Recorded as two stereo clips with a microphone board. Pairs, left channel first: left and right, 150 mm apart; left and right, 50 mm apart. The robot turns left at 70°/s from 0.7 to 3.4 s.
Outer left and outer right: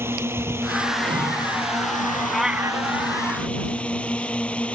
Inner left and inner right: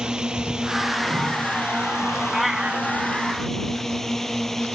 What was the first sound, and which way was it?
A drone, 160° right.